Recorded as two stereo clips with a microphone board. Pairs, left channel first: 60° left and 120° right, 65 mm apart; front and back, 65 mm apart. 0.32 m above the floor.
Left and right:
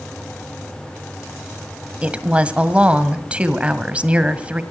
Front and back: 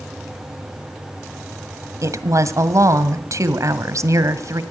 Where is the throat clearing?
I don't hear throat clearing.